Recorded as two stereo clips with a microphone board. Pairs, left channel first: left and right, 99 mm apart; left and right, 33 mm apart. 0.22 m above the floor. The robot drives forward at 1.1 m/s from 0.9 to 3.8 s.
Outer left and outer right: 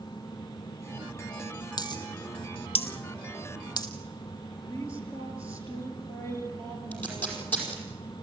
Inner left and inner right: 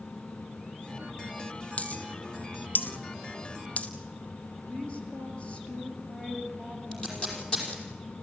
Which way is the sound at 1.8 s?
45° left (ahead or behind).